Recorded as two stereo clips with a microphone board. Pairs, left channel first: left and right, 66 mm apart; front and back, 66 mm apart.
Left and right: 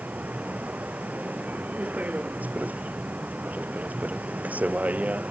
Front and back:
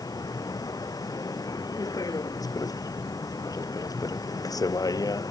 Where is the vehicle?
25° right.